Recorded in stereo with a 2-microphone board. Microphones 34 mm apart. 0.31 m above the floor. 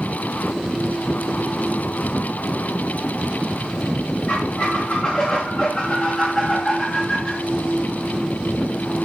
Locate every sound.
4.3 s a squeak: 35° left (ahead or behind), 5.5 m